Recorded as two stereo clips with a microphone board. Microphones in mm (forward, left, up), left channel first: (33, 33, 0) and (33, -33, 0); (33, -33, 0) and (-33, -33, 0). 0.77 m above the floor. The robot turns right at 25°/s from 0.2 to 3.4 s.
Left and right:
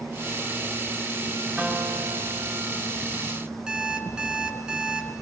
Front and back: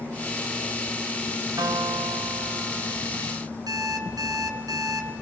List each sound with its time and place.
1.6 s a guitar: 170° right, 5.5 m; by 3.0 s 135° right, 5.5 m
3.7 s an alarm clock: 165° right, 5 m